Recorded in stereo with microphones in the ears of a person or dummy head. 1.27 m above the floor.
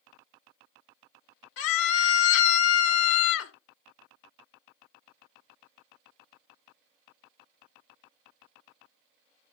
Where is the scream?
80° left, 1.0 m.